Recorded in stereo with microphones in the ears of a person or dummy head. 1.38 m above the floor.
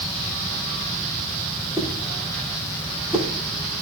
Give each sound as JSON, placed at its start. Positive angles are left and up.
{"t": 1.8, "sound": "a whoosh", "side_deg": -10, "distance_m": 1.7}